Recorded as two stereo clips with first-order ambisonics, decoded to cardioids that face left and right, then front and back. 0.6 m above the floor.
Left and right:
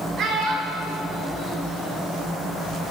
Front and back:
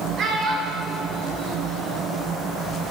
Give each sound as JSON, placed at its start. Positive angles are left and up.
{"t": 0.2, "sound": "a child speaking", "azimuth_deg": -135, "distance_m": 0.9}